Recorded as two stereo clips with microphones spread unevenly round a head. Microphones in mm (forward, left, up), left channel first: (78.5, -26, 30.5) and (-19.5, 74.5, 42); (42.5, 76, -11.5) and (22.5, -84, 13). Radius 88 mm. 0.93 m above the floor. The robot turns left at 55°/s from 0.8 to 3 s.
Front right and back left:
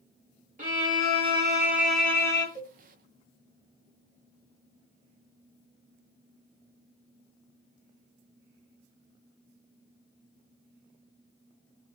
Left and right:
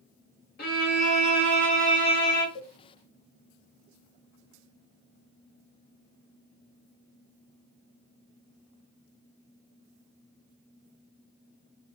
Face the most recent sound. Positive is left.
turn(degrees=-10)